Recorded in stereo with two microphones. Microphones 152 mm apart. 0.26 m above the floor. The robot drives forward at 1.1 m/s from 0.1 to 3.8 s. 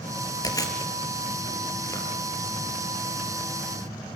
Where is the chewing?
25° left (ahead or behind), 4 m; by 3.7 s 15° left (ahead or behind), 7.5 m.